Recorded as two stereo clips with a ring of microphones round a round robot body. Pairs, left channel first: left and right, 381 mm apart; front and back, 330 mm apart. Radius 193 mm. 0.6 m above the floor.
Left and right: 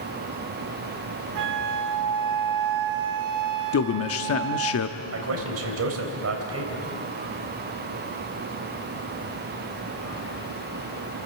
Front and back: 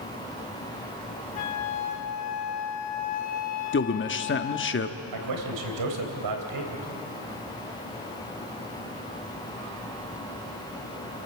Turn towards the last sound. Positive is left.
turn(degrees=-145)